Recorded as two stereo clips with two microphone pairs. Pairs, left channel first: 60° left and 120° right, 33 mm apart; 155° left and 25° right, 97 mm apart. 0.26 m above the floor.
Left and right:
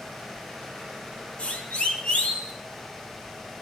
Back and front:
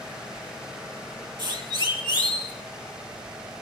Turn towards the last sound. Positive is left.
turn(degrees=10)